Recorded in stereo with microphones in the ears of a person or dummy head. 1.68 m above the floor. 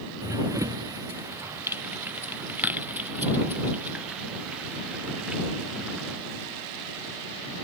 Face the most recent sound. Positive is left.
turn(degrees=0)  # may be behind; listen again after turning